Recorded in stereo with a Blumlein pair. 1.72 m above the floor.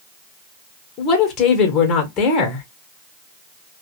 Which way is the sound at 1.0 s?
30° left.